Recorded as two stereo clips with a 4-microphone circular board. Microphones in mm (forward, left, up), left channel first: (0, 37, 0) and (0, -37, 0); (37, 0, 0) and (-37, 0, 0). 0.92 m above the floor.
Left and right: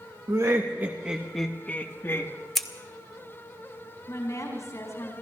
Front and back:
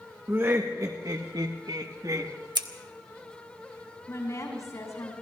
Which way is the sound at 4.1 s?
40° left.